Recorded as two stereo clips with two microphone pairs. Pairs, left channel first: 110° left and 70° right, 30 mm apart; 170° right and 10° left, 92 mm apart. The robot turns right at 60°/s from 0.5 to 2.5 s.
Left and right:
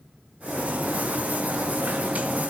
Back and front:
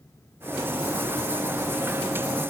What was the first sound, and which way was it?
Only background noise.